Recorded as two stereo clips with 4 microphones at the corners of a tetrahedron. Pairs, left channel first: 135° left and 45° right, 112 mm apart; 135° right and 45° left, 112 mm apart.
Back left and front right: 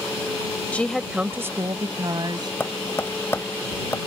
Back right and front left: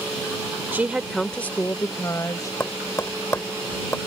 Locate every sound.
0.7 s a woman speaking: 85° left; by 2.5 s 80° right
2.6 s tapping: straight behind